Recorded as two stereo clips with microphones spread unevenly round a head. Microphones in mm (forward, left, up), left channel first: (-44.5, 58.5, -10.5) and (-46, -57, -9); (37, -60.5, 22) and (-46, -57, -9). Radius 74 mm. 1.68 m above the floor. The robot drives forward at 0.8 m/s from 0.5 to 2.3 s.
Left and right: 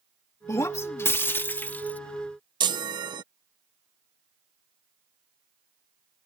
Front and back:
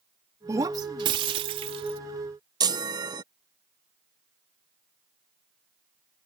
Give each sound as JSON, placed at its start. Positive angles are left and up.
{"t": 0.5, "sound": "breaking glass", "azimuth_deg": 115}
{"t": 2.6, "sound": "a chime", "azimuth_deg": -135}